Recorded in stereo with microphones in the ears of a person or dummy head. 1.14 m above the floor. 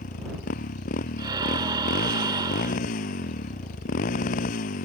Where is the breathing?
25° right (ahead or behind).